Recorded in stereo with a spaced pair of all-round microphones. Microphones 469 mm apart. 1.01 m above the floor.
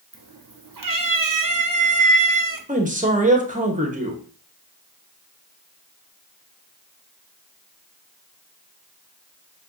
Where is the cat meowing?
45° right (ahead or behind), 0.6 m.